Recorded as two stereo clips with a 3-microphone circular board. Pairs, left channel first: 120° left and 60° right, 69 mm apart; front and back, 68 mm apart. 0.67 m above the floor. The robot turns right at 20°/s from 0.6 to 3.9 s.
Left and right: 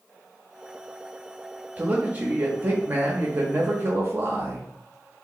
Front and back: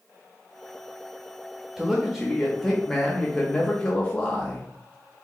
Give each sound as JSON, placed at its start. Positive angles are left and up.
{"t": 1.8, "sound": "a man speaking", "azimuth_deg": -105, "distance_m": 0.6}